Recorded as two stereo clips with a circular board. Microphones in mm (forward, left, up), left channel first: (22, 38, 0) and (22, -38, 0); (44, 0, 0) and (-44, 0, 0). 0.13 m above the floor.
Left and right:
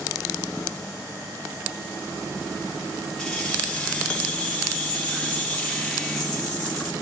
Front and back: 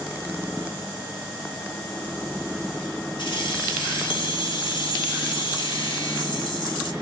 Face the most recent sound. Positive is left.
turn(degrees=10)